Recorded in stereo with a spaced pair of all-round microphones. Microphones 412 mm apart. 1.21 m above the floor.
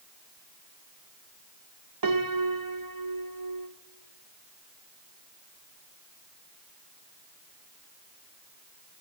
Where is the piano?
55° right (ahead or behind), 0.9 m.